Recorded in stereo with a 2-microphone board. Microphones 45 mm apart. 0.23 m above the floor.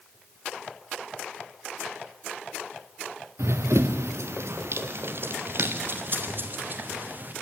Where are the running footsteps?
80° right, 1.2 m; by 7.3 s 40° right (ahead or behind), 2.5 m.